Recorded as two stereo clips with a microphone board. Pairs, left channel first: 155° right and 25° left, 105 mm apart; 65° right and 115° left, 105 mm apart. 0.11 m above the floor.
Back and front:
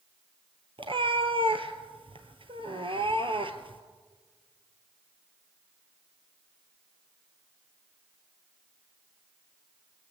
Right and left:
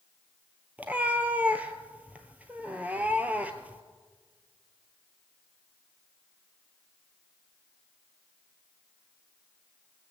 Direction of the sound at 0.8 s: 40° left.